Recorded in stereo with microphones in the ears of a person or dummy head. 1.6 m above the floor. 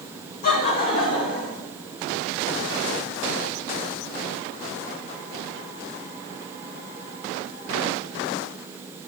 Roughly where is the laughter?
Left.